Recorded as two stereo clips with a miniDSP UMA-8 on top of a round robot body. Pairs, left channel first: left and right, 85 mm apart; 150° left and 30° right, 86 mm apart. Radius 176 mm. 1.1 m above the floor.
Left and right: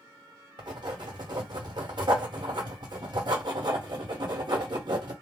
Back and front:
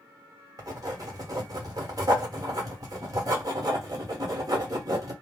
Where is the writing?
70° right, 1.4 m.